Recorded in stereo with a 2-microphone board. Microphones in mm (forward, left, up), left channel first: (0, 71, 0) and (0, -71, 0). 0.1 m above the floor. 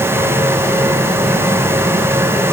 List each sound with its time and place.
Only background noise.